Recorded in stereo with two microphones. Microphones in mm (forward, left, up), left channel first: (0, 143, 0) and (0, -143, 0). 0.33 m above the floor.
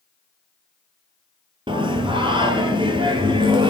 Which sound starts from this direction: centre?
Singing, at 1.7 s.